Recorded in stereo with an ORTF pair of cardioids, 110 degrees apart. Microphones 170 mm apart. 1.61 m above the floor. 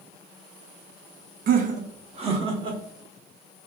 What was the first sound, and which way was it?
Laughter, 55° right.